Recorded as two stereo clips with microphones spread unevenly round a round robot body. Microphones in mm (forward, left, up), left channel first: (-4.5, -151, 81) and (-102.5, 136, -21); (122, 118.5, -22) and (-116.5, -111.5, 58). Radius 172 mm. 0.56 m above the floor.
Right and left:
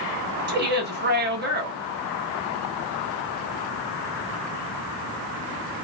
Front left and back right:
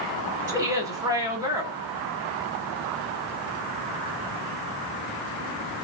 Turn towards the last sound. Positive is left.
turn(degrees=140)